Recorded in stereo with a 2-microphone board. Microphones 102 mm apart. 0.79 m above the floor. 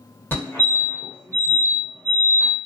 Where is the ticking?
I don't hear ticking.